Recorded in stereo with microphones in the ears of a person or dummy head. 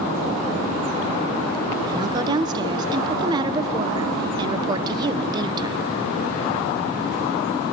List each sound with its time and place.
1.9 s a woman speaking: 25° right (ahead or behind), 0.7 m